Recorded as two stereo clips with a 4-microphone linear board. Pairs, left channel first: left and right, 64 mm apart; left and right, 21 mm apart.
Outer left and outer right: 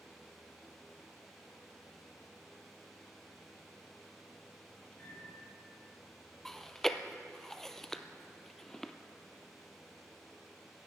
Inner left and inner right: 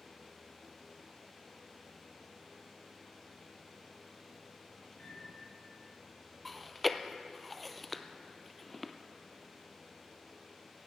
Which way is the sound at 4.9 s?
25° left (ahead or behind).